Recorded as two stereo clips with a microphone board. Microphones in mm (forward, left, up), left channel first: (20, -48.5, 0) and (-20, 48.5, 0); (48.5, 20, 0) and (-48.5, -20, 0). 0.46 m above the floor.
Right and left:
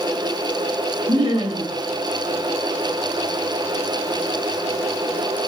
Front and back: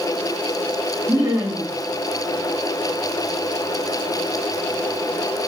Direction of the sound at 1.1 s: 130° left.